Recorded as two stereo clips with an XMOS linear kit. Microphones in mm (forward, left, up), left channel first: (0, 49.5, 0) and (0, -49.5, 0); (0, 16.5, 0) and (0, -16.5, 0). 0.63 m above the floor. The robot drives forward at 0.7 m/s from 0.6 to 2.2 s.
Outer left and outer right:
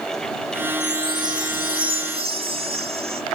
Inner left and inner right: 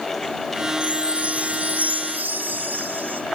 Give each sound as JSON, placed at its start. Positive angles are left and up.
{"t": 0.8, "sound": "a chime", "side_deg": -45, "distance_m": 1.9}